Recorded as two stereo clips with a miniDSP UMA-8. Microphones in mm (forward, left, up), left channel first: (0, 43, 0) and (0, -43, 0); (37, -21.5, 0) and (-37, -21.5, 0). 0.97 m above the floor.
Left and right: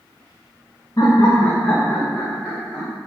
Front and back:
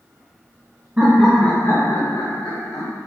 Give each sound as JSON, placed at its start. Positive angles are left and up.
{"t": 1.0, "sound": "laughter", "azimuth_deg": 120, "distance_m": 0.6}